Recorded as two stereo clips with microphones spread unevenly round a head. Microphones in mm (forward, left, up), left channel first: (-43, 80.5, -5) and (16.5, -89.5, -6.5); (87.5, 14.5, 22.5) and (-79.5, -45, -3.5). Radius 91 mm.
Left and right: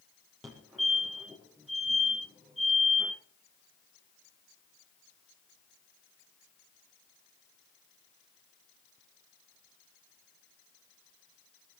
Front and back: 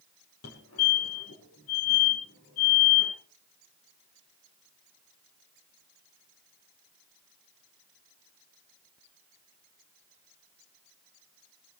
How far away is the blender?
No blender in this recording.